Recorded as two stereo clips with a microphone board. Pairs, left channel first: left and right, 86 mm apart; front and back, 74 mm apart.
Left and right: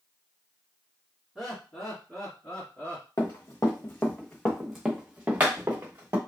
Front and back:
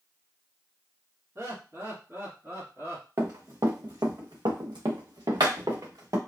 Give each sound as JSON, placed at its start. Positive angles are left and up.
{"t": 1.4, "sound": "laughter", "azimuth_deg": -170, "distance_m": 1.8}
{"t": 3.2, "sound": "running footsteps", "azimuth_deg": 135, "distance_m": 1.0}